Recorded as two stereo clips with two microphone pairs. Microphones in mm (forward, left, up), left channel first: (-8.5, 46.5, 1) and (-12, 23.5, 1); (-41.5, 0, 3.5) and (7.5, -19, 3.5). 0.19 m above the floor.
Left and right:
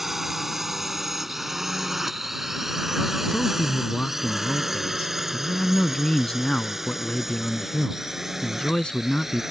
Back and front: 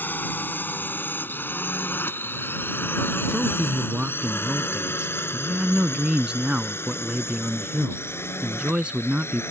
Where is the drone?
170° right; by 9.5 s 175° right.